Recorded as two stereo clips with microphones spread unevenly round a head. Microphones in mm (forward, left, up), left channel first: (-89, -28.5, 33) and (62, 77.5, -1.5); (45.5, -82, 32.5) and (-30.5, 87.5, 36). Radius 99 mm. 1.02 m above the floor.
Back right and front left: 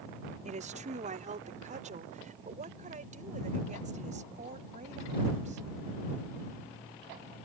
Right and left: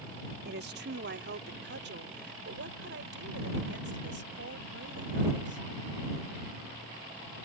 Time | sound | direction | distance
0.5 | a woman speaking | 85° left | ?